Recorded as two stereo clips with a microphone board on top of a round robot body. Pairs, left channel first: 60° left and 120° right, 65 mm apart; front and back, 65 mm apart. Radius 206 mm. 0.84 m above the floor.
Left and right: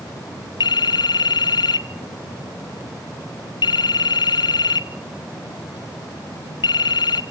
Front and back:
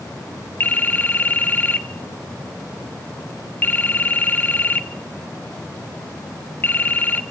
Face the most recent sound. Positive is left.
turn(degrees=65)